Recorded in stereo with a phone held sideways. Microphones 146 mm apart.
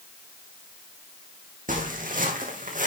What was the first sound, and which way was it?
Footsteps, 65° right (ahead or behind).